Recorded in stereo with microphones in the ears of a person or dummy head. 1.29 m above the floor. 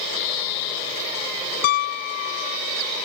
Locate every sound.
1.6 s a piano: 60° left (ahead or behind)